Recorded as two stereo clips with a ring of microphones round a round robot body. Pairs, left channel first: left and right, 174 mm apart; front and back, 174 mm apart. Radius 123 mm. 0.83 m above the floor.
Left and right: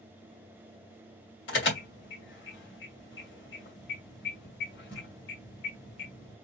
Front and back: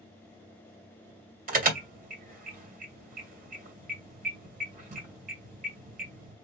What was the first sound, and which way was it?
An alarm, 140° left.